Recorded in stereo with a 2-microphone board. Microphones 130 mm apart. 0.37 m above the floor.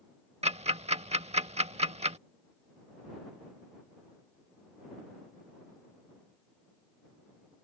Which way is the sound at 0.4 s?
55° right (ahead or behind).